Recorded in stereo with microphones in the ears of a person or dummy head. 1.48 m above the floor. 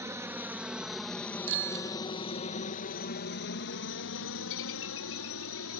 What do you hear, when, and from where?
0.0 s a helicopter: 10° right (ahead or behind); by 5.8 s 70° left (ahead or behind)
1.5 s a bicycle bell: 70° right (ahead or behind)